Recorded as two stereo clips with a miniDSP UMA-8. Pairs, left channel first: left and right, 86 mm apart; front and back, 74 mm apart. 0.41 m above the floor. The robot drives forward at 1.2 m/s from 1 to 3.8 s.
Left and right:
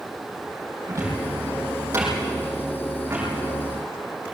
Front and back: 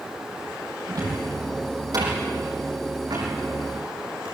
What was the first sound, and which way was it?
A cupboard door, 145° right.